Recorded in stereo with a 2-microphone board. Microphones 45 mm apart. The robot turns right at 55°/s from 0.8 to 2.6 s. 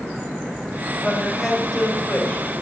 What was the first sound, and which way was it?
A woman speaking, 20° right.